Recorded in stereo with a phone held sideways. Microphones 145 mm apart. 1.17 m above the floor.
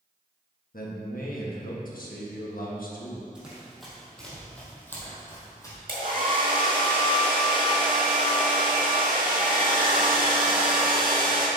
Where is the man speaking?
80° left, 1.4 m.